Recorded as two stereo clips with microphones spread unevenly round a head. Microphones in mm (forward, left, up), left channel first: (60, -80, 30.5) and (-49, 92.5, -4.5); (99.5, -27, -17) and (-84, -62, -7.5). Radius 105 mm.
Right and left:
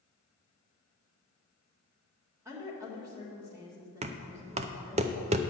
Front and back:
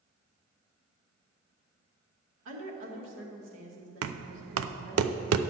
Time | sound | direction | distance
2.5 | a woman speaking | 160° right | 2 m
4.0 | knocking | 175° right | 0.5 m